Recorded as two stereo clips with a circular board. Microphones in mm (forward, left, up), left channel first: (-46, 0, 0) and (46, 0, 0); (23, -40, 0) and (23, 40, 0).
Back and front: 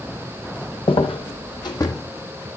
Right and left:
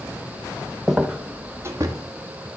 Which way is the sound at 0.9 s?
175° left.